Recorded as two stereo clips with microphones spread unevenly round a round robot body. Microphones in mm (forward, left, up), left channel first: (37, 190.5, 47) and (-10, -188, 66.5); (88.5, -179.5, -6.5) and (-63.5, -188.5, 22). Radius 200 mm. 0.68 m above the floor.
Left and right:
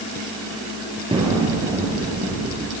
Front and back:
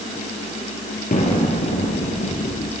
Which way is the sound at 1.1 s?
20° right.